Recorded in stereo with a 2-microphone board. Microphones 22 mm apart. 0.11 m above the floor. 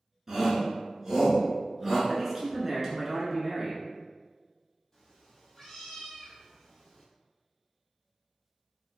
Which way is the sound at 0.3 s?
20° right (ahead or behind).